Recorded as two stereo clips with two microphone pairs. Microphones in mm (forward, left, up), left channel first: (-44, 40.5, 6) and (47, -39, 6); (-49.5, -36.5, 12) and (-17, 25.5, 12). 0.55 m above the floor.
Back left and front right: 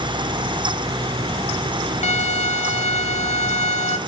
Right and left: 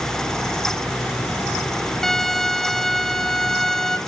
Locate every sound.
2.0 s a violin: 160° left, 0.7 m